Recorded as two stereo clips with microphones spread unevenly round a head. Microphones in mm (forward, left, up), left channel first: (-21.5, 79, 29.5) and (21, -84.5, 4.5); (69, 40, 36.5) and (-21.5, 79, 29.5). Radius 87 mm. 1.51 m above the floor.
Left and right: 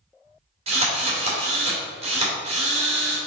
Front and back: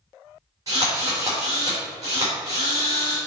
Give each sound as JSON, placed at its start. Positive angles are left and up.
{"t": 0.7, "sound": "a drill", "azimuth_deg": -130, "distance_m": 3.0}